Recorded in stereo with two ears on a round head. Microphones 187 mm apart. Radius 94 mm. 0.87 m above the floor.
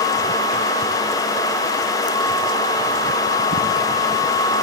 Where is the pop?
No pop in this recording.